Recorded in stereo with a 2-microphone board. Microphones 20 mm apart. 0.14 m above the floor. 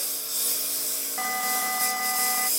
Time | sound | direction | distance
0.0 | a lawn mower | 5° right (ahead or behind) | ?
1.2 | an alarm | 15° right (ahead or behind) | ?